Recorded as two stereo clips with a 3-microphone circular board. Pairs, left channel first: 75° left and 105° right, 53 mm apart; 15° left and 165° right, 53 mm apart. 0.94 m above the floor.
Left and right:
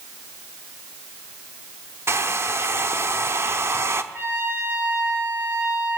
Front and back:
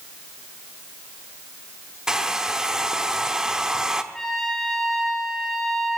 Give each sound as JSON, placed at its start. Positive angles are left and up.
{"t": 2.1, "sound": "a hair dryer", "azimuth_deg": -90, "distance_m": 0.9}
{"t": 4.1, "sound": "a trumpet", "azimuth_deg": -65, "distance_m": 2.5}